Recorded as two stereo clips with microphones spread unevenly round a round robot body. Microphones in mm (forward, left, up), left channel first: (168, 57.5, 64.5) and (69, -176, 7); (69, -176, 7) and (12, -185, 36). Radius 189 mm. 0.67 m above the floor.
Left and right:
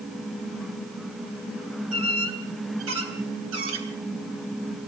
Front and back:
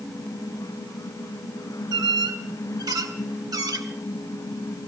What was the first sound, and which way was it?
A squeak, 160° right.